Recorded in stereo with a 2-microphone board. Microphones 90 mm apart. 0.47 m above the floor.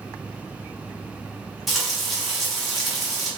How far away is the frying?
About 1.0 m.